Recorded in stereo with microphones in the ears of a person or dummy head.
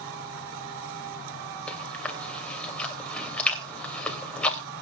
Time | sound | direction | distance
1.7 | chewing | 10° left (ahead or behind) | 3 m